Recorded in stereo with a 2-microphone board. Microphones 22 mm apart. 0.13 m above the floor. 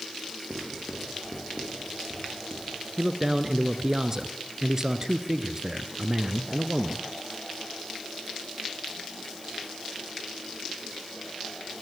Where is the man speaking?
25° right (ahead or behind), 1.6 m.